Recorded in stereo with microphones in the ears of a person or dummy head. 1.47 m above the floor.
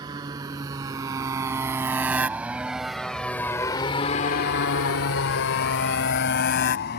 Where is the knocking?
No knocking in this recording.